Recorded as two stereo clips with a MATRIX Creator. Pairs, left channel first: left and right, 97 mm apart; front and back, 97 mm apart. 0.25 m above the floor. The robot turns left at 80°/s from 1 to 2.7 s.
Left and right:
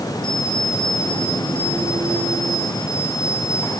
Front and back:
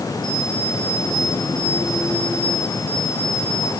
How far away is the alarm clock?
About 9 m.